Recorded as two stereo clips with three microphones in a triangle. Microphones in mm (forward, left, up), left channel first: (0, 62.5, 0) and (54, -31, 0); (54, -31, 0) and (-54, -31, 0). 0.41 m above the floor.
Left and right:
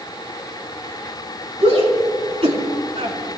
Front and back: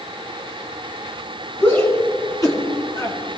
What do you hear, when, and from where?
1.6 s a shout: 65° right, 4.5 m; by 3.2 s 50° right, 4 m